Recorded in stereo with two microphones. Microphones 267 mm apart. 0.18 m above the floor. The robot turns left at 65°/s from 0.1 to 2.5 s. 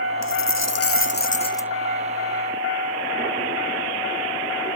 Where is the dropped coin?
100° left; by 1.7 s 5° left.